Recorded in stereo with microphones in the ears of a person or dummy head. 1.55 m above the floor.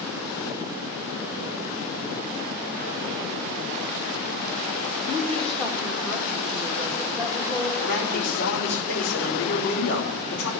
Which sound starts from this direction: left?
A man speaking, at 7.8 s.